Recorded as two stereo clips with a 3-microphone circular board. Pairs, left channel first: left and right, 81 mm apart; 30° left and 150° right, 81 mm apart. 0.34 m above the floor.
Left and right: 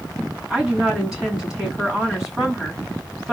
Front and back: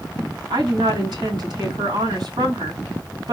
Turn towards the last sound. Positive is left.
turn(degrees=-170)